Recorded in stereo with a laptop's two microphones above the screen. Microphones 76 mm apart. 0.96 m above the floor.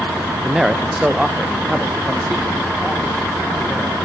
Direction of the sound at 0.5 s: 5° right (ahead or behind).